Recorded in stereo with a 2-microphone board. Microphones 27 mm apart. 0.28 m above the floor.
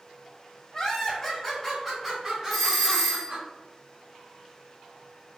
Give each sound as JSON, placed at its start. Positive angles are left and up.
{"t": 0.7, "sound": "laughter", "side_deg": 25, "distance_m": 1.5}
{"t": 2.5, "sound": "a doorbell", "side_deg": 15, "distance_m": 1.6}